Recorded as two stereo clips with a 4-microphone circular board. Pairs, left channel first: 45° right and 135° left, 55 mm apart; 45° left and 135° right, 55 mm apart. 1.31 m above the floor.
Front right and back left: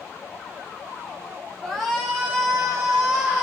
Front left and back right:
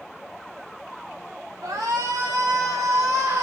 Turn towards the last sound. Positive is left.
turn(degrees=-145)